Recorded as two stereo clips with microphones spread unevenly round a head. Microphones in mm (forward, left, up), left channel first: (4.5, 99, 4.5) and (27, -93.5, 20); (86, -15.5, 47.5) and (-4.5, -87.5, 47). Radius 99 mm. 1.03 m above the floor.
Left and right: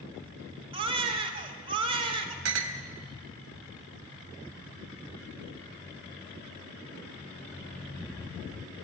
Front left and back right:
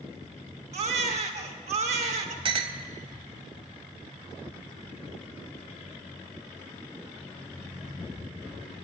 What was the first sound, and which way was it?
A baby crying, 140° right.